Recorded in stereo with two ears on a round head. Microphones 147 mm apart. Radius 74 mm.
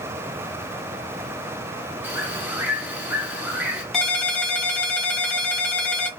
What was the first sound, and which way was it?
A bird, 10° right (ahead or behind).